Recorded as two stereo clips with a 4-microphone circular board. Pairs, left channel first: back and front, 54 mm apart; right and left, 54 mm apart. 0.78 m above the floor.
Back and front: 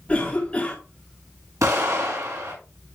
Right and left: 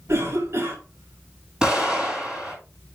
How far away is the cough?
About 2 m.